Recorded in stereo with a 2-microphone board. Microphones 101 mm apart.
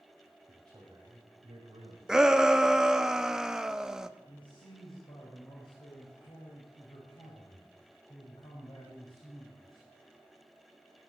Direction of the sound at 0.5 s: 35° right (ahead or behind).